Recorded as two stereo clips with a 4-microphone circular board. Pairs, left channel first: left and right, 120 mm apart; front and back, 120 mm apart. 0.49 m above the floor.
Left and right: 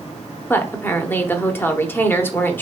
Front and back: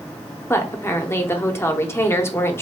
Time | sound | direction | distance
0.5 | a woman speaking | 40° left | 0.8 m